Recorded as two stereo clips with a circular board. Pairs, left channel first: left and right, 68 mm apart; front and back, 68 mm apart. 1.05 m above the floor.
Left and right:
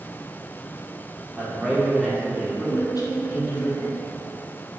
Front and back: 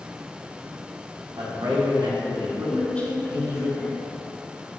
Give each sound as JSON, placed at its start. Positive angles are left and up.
{"t": 1.4, "sound": "a man speaking", "azimuth_deg": -170, "distance_m": 3.5}
{"t": 2.7, "sound": "a woman speaking", "azimuth_deg": 70, "distance_m": 2.0}